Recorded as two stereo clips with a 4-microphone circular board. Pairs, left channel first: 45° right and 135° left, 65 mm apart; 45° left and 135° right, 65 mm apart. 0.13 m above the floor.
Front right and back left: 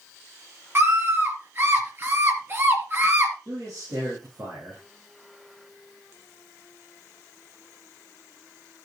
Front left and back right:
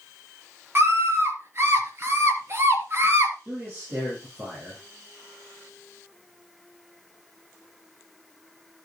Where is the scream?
Straight behind, 3 m.